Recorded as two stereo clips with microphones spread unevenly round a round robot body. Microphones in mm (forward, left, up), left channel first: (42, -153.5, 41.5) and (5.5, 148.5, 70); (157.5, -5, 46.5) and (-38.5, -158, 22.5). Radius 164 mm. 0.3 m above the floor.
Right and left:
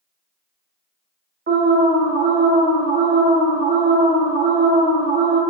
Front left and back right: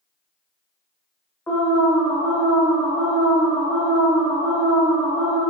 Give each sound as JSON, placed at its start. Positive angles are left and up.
{"t": 1.5, "sound": "an alarm", "azimuth_deg": 120, "distance_m": 0.6}